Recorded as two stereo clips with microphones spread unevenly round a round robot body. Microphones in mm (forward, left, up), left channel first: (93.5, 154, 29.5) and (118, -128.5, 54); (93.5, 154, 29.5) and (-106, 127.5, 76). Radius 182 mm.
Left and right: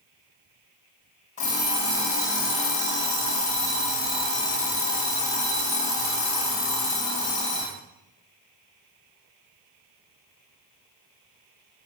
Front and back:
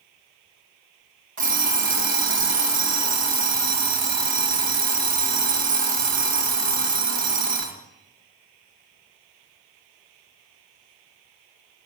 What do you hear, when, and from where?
1.4 s an alarm clock: 165° left, 2.5 m